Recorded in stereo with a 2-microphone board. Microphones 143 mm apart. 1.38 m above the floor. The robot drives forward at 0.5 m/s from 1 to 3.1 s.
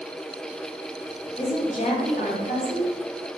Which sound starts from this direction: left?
A woman speaking, at 1.4 s.